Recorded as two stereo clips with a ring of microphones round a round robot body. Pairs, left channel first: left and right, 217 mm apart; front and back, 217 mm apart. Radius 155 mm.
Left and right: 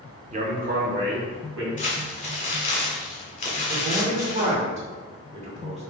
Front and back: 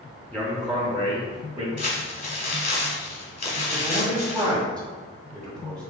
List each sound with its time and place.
0.3 s a man speaking: 80° right, 1.0 m; by 1.7 s 100° right, 1.7 m
1.8 s crumpling: 40° left, 2.0 m
3.7 s a man speaking: 80° right, 1.4 m